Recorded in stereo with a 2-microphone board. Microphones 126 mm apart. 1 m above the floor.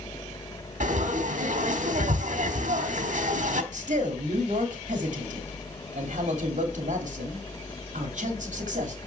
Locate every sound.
0.8 s frying: 70° right (ahead or behind), 1.2 m
3.7 s a man speaking: 65° right (ahead or behind), 2.5 m